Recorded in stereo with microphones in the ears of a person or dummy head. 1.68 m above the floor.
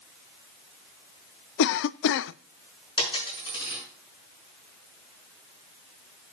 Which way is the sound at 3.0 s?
25° left (ahead or behind).